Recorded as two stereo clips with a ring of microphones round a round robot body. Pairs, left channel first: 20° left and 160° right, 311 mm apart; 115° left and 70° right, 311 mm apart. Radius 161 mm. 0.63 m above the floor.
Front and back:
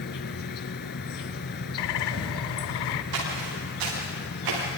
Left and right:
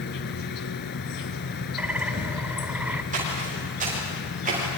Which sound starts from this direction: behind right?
Footsteps, at 3.1 s.